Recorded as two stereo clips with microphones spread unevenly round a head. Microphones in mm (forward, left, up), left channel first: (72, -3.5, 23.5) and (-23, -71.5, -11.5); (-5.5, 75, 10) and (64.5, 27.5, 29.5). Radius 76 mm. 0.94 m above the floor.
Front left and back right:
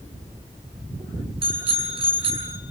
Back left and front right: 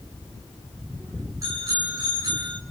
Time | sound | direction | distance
1.4 | a bicycle bell | 100° right | 7 m